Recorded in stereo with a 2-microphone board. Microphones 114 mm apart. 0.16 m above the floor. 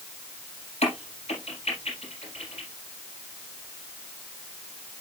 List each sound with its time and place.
0.8 s a crack: 70° left (ahead or behind), 4.5 m